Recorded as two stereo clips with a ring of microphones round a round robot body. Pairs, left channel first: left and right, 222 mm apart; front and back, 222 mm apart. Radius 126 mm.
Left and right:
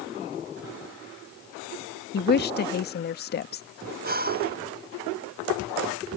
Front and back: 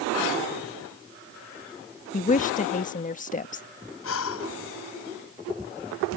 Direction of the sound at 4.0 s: 40° right.